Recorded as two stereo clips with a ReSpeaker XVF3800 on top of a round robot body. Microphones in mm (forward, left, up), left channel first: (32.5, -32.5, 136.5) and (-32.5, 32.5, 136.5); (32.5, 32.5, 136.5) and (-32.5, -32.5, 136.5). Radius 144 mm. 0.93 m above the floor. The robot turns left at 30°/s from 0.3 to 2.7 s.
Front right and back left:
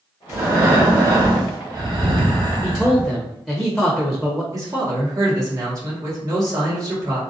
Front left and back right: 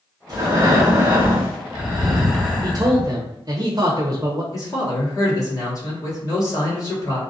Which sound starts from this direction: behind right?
A man speaking, at 2.6 s.